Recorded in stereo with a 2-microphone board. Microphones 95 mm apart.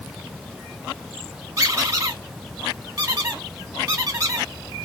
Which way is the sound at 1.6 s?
35° right (ahead or behind).